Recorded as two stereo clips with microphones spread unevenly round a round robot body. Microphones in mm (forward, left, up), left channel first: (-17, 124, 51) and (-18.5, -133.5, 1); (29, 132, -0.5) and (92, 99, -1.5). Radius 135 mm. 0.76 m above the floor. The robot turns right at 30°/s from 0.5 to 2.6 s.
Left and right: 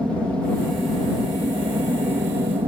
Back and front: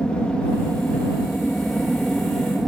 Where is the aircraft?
160° right; by 2.7 s 95° right.